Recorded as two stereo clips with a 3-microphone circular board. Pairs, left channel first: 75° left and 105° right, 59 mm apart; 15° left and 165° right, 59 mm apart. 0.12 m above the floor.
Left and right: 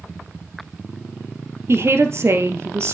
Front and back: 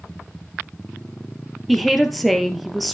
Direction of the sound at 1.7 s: 75° right.